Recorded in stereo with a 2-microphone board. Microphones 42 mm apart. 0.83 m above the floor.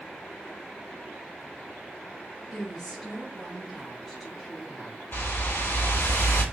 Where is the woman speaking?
5° left (ahead or behind), 1.9 m.